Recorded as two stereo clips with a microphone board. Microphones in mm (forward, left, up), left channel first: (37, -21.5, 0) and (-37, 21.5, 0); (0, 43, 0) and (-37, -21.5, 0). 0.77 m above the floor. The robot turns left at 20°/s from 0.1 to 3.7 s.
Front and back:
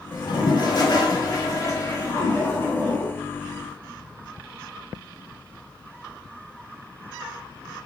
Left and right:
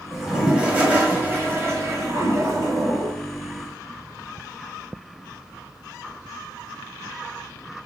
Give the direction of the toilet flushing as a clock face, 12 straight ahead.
1 o'clock.